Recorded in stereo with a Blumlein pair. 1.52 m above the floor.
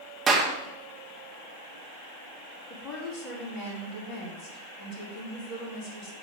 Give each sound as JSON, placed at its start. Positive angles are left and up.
{"t": 0.3, "sound": "a clap", "azimuth_deg": -20, "distance_m": 2.5}
{"t": 2.7, "sound": "a woman speaking", "azimuth_deg": 35, "distance_m": 4.0}